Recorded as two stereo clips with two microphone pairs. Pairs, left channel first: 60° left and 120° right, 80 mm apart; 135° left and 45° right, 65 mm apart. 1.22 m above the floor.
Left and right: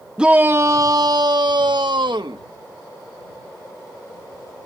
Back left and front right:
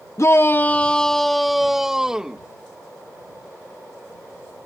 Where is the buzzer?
No buzzer in this recording.